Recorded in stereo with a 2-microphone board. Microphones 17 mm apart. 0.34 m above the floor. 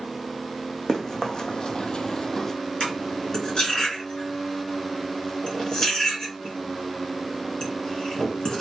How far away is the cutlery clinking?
About 2.5 m.